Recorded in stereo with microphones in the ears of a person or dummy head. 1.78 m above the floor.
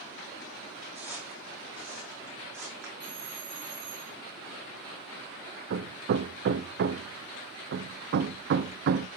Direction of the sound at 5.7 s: 65° right (ahead or behind).